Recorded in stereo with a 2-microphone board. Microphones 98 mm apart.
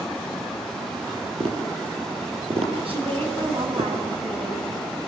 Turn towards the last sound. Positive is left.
turn(degrees=-65)  # may be behind; listen again after turning